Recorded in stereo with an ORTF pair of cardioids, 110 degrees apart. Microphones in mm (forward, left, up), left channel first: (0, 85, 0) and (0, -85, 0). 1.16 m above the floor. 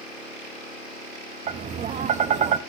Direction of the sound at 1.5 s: 45° right.